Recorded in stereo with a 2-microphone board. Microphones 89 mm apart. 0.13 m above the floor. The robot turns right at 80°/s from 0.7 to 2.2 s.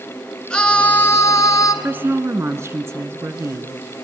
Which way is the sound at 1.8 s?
20° right (ahead or behind).